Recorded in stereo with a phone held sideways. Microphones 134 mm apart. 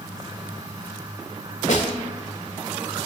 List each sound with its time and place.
0.0 s a fan: 30° right (ahead or behind), 0.9 m
1.7 s a snare drum: 70° left (ahead or behind), 1.9 m